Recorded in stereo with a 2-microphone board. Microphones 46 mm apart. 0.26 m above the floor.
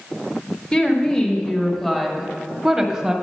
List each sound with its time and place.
0.7 s a woman speaking: 25° left (ahead or behind), 1.2 m; by 3.1 s 15° right (ahead or behind), 1.1 m